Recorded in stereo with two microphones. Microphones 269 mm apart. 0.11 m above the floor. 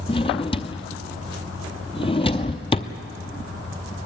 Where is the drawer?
20° left (ahead or behind), 0.8 m.